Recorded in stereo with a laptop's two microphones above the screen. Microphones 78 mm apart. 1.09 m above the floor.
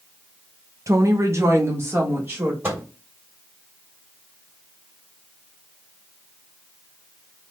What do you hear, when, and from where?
0.9 s a woman speaking: 45° right (ahead or behind), 0.6 m; by 2.5 s 30° right (ahead or behind), 1.5 m
2.6 s a microwave: 30° right (ahead or behind), 1.5 m